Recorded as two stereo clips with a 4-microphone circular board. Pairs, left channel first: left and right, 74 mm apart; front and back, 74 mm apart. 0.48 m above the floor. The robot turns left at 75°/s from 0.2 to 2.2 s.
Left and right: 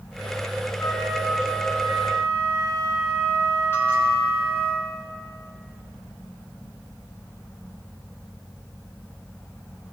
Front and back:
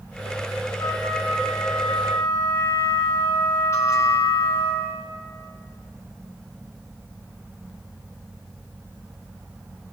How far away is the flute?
About 4.5 m.